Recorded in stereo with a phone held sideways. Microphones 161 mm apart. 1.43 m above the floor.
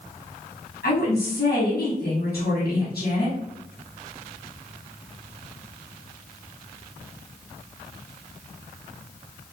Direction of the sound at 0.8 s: 85° left.